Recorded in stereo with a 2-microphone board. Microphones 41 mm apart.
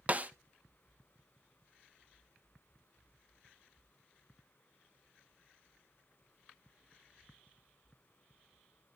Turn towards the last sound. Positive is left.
turn(degrees=-30)  # may be behind; listen again after turning